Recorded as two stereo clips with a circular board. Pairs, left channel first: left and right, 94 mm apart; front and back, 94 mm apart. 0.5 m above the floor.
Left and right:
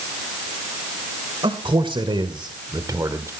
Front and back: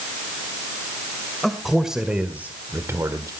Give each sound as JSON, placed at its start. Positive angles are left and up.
{"t": 1.4, "sound": "a man speaking", "azimuth_deg": -85, "distance_m": 1.8}